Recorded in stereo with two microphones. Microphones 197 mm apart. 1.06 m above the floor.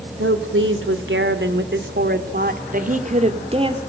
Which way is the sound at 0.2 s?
85° right.